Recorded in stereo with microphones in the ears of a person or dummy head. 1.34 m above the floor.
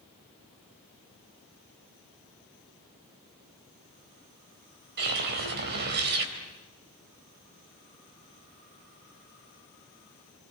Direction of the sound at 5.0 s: 55° right (ahead or behind).